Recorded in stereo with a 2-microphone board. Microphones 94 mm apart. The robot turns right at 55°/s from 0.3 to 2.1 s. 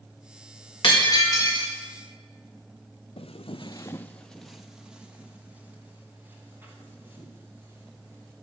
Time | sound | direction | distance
0.8 | breaking glass | 120° left | 3.5 m
3.2 | footsteps | 85° left | 0.7 m